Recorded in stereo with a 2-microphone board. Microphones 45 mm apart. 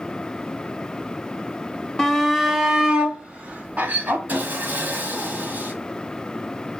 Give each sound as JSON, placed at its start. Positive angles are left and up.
{"t": 2.0, "sound": "a shout", "side_deg": 10, "distance_m": 1.3}
{"t": 4.3, "sound": "sawing", "side_deg": -40, "distance_m": 2.0}